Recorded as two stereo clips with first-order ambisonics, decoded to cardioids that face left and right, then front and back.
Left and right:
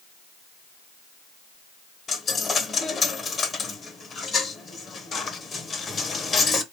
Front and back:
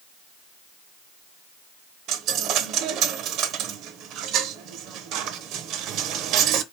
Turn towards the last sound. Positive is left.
turn(degrees=155)